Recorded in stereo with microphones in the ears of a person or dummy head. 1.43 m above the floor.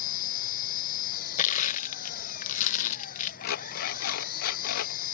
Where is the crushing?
40° left (ahead or behind).